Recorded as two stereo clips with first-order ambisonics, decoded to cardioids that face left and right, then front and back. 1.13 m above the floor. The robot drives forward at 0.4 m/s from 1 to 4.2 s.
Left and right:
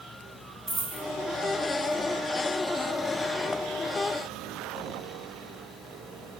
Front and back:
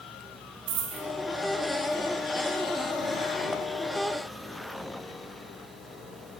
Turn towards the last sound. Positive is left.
turn(degrees=-170)